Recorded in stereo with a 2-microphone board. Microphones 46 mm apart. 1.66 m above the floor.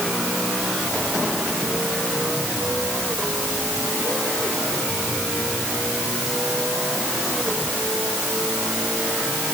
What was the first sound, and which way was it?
Only background noise.